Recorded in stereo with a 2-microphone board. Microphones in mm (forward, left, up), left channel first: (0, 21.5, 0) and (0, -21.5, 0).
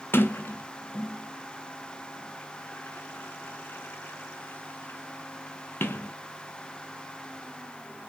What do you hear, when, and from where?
0.1 s a sliding door: 60° left (ahead or behind), 0.6 m